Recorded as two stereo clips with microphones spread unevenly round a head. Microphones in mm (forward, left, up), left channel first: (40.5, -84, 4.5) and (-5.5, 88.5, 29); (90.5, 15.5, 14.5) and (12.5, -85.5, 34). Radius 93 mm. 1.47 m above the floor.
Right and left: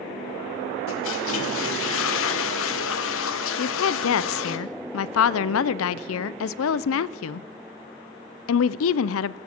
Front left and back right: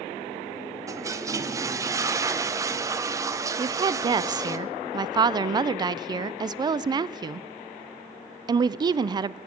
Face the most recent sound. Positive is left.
turn(degrees=-70)